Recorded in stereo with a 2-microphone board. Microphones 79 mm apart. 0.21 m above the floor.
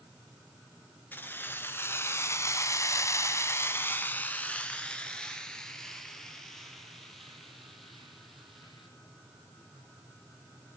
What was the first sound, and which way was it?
Keys jangling, 20° left (ahead or behind).